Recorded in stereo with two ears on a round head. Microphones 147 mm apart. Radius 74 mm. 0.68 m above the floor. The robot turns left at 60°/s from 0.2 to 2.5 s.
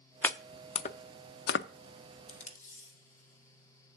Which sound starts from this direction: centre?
Chopping, at 0.2 s.